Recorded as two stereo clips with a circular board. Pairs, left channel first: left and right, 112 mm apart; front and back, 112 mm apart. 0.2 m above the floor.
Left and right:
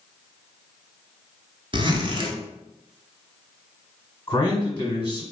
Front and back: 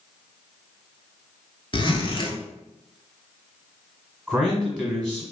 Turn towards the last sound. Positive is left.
turn(degrees=110)